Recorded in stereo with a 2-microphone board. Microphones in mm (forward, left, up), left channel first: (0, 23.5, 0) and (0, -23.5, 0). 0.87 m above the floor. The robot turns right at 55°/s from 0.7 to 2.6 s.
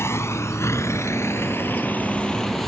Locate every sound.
0.0 s a vehicle: 70° left (ahead or behind); by 2.7 s 5° left (ahead or behind)